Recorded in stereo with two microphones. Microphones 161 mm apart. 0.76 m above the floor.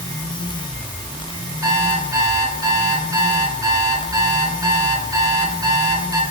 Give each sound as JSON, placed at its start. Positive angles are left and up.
{"t": 1.6, "sound": "an alarm clock", "side_deg": -20, "distance_m": 6.0}